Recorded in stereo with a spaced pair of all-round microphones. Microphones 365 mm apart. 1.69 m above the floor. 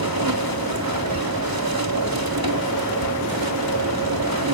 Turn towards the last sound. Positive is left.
turn(degrees=-80)